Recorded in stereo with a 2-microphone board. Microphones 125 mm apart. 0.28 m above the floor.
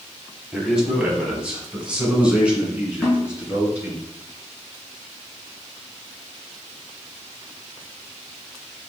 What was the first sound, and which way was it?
A man speaking, 5° right (ahead or behind).